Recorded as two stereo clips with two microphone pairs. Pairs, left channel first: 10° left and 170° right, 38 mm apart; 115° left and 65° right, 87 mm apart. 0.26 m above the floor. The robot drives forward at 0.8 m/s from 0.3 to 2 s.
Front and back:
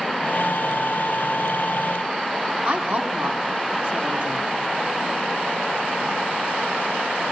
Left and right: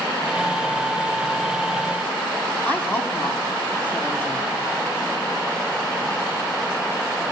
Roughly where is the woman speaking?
Behind.